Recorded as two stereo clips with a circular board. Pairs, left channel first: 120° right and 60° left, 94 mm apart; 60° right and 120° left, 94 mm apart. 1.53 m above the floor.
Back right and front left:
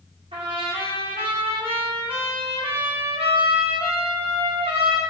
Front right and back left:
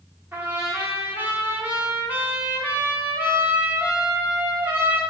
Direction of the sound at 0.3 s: 50° left.